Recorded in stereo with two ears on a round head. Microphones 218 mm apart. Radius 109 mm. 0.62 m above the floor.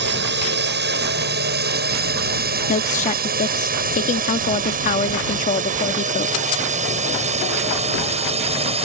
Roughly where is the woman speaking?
Left.